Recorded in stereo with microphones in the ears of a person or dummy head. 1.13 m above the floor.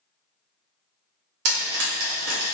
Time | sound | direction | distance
1.4 | frying | 75° right (ahead or behind) | 1.4 m